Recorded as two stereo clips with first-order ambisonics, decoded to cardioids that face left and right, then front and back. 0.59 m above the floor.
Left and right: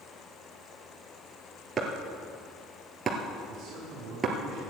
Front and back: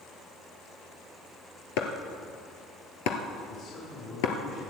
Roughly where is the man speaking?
Ahead right.